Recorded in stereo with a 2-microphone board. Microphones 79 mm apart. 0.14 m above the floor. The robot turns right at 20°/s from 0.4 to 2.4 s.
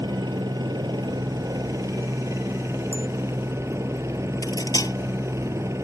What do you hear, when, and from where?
0.0 s a helicopter: 80° right; by 5.8 s 40° right
2.9 s a bicycle bell: 25° right (ahead or behind)
4.4 s cutlery clinking: 50° left (ahead or behind)